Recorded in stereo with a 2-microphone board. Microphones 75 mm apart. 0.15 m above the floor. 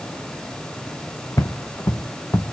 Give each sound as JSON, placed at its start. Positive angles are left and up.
{"t": 1.4, "sound": "footsteps", "side_deg": 40, "distance_m": 1.0}